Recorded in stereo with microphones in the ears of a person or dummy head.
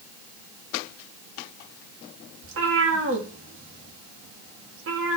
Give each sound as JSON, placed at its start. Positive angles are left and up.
{"t": 2.4, "sound": "a cat meowing", "side_deg": -65, "distance_m": 1.3}